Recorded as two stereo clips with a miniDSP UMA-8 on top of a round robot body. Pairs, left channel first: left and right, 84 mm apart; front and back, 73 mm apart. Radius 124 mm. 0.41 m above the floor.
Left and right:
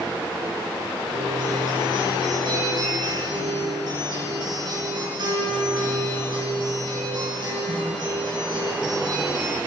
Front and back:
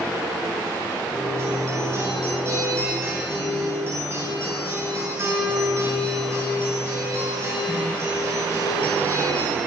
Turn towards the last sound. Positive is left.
turn(degrees=-125)